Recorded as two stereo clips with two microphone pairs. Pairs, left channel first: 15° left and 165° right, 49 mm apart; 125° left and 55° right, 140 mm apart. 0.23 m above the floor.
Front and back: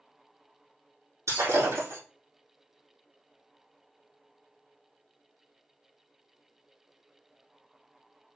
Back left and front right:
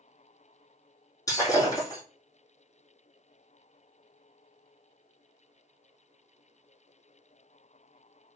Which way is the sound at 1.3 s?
170° right.